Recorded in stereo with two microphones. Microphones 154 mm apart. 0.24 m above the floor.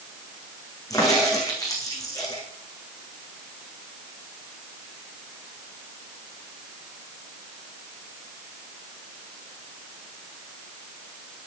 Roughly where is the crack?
Left.